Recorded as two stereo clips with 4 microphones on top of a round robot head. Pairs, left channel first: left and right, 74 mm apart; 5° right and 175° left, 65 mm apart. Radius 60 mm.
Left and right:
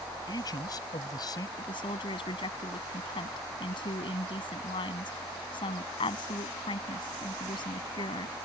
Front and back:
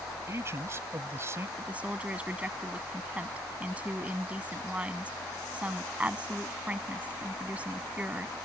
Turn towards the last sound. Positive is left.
turn(degrees=105)